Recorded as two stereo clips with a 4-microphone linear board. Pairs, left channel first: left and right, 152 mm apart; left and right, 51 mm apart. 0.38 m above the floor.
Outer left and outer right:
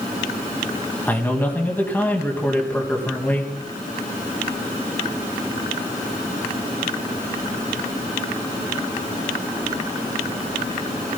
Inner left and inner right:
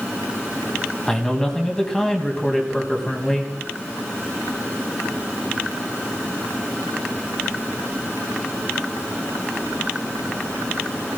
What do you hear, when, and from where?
1.1 s a man speaking: 10° left (ahead or behind), 3 m